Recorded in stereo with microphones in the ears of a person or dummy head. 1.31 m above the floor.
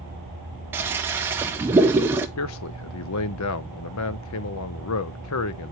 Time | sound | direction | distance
0.7 | a toilet flushing | 15° right (ahead or behind) | 0.7 m
2.4 | a man speaking | 80° left | 0.6 m